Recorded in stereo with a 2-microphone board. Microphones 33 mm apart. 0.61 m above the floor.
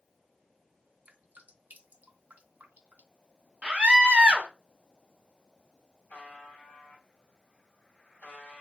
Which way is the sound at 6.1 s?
55° left (ahead or behind).